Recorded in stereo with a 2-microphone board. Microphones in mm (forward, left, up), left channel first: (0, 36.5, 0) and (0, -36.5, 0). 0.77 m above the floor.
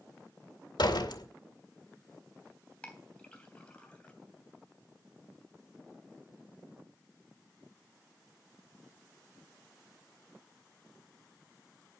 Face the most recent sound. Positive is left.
turn(degrees=15)  # may be behind; listen again after turning